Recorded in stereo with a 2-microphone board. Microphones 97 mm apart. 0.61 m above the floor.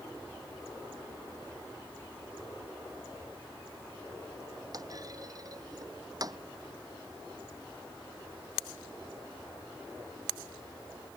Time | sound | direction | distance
4.7 | a clunk | 40° right (ahead or behind) | ?